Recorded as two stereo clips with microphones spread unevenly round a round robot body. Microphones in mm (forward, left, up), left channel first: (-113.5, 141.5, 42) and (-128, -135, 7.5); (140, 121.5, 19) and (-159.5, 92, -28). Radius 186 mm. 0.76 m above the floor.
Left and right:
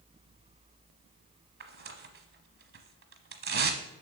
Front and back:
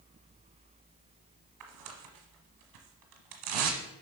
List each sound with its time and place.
1.6 s tearing paper: 140° right, 1.1 m